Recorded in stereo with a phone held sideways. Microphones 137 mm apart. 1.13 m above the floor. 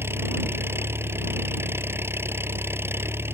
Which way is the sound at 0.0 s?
15° right (ahead or behind).